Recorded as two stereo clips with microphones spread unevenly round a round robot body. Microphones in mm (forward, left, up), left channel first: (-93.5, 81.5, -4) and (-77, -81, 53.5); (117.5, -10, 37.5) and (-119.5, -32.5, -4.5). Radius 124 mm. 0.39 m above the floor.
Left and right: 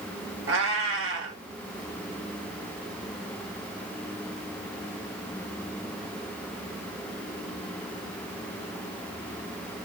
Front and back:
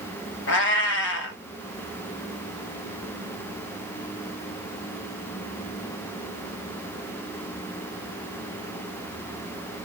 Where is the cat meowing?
40° right, 0.6 m.